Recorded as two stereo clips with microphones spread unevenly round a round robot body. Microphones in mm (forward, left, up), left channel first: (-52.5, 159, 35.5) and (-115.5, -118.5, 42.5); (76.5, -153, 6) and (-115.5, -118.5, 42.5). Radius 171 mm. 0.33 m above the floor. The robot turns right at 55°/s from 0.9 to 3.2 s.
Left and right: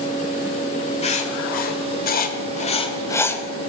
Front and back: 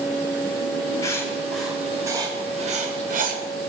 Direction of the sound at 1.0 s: 30° left.